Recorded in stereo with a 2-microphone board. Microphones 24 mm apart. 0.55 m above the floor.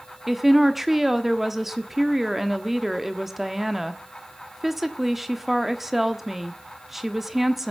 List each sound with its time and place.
0.3 s a woman speaking: 5° right (ahead or behind), 1.2 m